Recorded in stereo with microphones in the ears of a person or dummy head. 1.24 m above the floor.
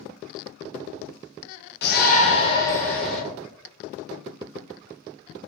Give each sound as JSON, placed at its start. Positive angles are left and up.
{"t": 1.8, "sound": "a shout", "side_deg": 45, "distance_m": 0.6}